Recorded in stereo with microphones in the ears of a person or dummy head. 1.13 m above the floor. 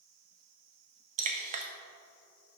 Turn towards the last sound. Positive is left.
turn(degrees=-40)  # may be behind; listen again after turning